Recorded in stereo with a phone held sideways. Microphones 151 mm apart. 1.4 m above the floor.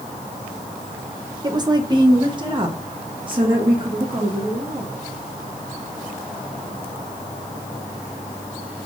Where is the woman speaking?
30° right (ahead or behind), 0.9 m; by 4.9 s 35° right (ahead or behind), 2.5 m.